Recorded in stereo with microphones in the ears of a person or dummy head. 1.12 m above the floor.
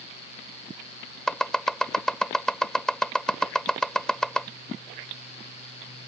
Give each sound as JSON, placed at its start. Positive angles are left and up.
{"t": 1.3, "sound": "chopping", "side_deg": 5}